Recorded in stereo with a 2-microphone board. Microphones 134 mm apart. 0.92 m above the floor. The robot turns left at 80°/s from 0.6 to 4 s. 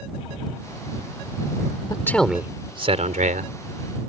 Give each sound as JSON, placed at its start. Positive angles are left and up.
{"t": 1.9, "sound": "a man speaking", "azimuth_deg": 30}